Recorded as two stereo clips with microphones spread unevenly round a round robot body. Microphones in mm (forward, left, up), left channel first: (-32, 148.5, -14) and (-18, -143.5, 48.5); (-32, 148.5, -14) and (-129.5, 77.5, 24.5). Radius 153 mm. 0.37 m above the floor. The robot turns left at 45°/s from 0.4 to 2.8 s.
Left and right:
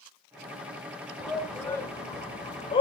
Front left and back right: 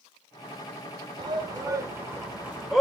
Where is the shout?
165° left, 1.1 m; by 2.8 s 95° left, 1.1 m.